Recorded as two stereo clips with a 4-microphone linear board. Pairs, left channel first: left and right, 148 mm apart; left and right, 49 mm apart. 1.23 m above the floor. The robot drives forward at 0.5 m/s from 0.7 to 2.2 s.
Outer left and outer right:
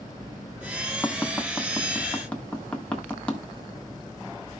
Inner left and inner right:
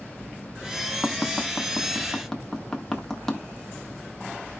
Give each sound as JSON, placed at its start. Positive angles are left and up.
{"t": 1.0, "sound": "tapping", "side_deg": 15, "distance_m": 0.9}